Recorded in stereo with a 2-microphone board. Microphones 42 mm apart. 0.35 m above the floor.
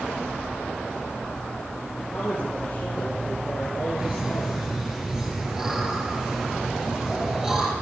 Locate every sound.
2.1 s a man speaking: 30° left (ahead or behind), 7 m; by 4.6 s 25° left (ahead or behind), 5.5 m
4.0 s laughter: 15° right (ahead or behind), 7.5 m